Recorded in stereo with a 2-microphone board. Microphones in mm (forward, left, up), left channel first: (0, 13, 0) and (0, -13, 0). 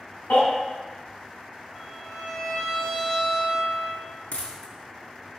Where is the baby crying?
85° left, 2.5 m.